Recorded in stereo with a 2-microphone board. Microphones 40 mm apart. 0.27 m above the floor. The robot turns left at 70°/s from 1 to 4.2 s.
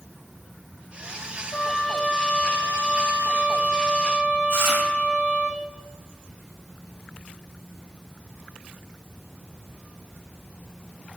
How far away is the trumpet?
About 4 m.